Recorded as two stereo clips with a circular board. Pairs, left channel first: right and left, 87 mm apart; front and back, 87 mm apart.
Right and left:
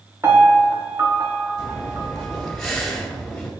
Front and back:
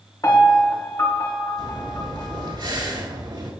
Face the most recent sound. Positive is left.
turn(degrees=180)